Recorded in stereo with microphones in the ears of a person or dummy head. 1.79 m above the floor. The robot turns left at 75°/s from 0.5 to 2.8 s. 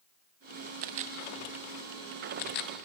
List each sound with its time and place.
0.8 s a camera shutter: 40° right (ahead or behind), 0.6 m; by 2.7 s 50° left (ahead or behind), 0.6 m